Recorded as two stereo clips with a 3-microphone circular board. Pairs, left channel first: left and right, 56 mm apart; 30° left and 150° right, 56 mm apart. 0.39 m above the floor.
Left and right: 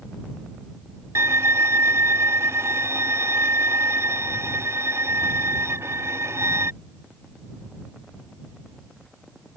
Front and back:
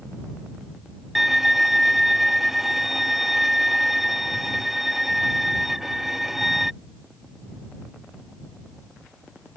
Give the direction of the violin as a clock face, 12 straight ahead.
2 o'clock.